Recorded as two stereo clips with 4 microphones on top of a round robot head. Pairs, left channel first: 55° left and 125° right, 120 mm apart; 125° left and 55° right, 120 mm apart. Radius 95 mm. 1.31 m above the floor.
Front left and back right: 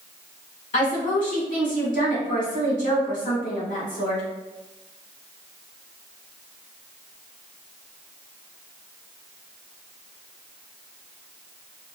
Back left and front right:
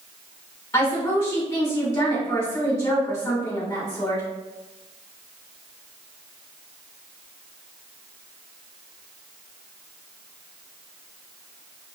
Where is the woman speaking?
60° left, 1.9 m.